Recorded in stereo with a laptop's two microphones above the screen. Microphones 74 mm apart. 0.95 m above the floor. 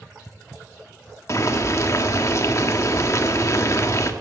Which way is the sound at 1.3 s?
45° left (ahead or behind).